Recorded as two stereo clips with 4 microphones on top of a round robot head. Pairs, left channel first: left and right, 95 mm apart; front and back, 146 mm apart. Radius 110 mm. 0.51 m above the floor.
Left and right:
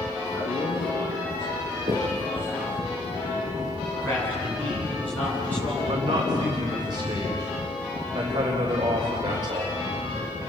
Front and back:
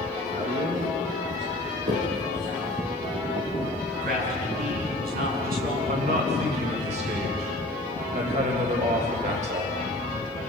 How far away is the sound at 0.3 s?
About 7.5 m.